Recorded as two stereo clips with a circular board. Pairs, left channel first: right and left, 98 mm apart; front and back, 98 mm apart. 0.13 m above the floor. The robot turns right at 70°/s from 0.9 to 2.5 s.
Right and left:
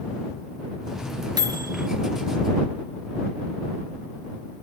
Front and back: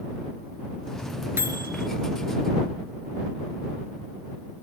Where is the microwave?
120° left; by 1.9 s 155° left.